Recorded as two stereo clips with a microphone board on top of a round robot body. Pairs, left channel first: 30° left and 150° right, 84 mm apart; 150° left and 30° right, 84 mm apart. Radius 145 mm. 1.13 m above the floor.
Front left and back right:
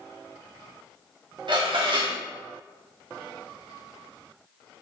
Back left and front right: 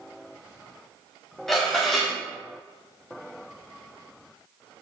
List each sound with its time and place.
1.5 s dishes clattering: 125° right, 2 m